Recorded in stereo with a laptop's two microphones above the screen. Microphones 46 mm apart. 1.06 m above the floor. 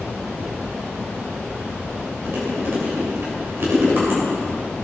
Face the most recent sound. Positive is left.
turn(degrees=-50)  # may be behind; listen again after turning